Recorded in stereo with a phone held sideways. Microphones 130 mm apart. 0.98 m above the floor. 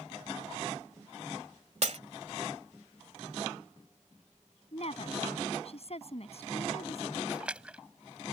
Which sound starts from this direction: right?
Breaking glass, at 1.8 s.